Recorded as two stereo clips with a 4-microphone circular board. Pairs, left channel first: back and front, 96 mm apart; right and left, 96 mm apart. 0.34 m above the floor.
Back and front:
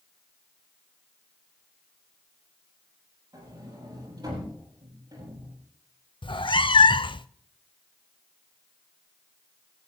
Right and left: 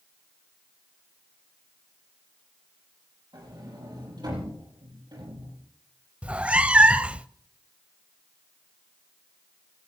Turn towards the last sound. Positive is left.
turn(degrees=165)